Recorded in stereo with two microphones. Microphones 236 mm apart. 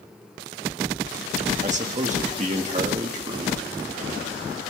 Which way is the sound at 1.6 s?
30° right (ahead or behind).